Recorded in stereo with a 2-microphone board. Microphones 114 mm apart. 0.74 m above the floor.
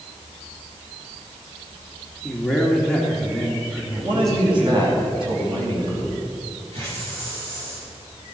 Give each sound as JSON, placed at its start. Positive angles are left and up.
{"t": 2.2, "sound": "a man speaking", "side_deg": 5, "distance_m": 2.0}
{"t": 4.0, "sound": "a man speaking", "side_deg": -50, "distance_m": 4.0}
{"t": 6.7, "sound": "a hiss", "side_deg": -60, "distance_m": 5.5}